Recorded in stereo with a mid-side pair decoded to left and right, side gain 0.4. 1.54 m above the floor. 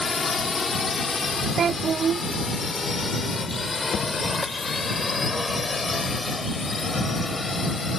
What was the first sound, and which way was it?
A drone, 40° left.